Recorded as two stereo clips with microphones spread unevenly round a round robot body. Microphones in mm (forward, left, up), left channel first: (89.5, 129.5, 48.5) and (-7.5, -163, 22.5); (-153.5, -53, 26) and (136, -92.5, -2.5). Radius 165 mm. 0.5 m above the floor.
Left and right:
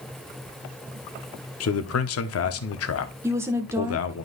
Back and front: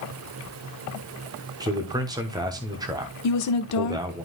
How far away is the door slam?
I don't hear a door slam.